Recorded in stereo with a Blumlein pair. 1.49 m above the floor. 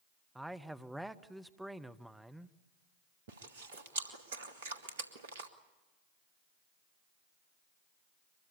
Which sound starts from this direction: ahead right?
Chewing, at 3.3 s.